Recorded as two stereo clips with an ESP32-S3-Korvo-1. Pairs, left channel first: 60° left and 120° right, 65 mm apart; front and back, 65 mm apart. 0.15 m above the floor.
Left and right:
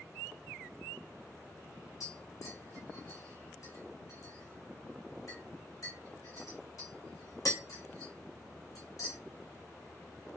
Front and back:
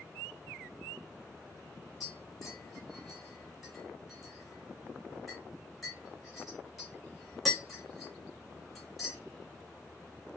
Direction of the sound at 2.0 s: 90° left.